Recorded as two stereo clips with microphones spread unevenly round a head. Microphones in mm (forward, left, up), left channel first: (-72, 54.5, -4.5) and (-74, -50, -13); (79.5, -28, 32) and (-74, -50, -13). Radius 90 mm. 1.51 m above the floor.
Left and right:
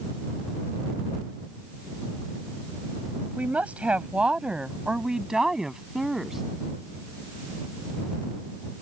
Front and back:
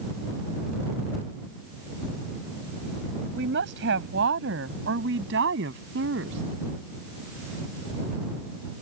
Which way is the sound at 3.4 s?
170° right.